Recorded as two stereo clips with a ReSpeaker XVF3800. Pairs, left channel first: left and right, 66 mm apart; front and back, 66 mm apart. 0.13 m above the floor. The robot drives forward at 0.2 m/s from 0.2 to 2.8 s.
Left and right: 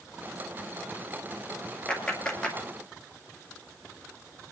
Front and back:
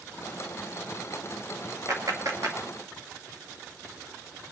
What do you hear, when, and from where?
1.9 s a clap: 160° left, 1.9 m; by 2.6 s 165° left, 2 m